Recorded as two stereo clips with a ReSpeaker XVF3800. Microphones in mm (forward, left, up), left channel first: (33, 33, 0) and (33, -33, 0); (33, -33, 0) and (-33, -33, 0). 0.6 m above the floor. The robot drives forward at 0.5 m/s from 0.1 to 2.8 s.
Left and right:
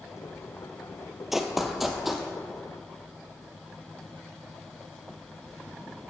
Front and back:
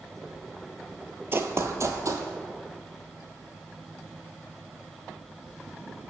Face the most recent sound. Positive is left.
turn(degrees=180)